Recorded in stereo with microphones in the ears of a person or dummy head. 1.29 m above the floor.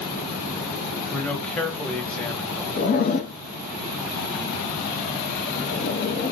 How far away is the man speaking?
About 0.8 m.